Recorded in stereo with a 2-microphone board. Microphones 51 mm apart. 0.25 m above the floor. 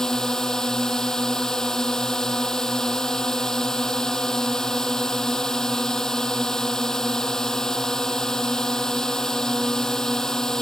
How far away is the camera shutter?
I don't hear a camera shutter.